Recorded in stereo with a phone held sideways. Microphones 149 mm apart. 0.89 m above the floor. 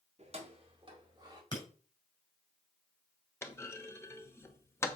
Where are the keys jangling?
45° right (ahead or behind), 1.7 m; by 1.4 s 25° right (ahead or behind), 2.5 m.